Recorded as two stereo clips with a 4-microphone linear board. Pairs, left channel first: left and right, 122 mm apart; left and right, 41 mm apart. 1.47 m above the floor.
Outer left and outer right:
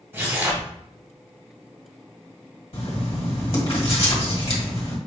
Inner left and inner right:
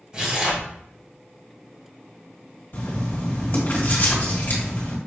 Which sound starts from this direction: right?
Tearing paper, at 0.1 s.